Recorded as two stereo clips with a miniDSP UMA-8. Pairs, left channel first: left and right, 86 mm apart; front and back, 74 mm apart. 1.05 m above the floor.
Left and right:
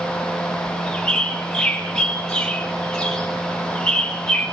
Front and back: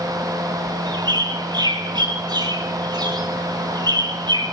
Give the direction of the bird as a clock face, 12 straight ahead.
6 o'clock.